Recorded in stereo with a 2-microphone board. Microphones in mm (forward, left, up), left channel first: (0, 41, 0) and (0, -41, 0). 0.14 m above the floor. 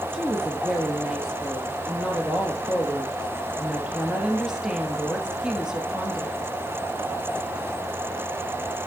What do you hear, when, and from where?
0.1 s a woman speaking: 5° right (ahead or behind), 2.5 m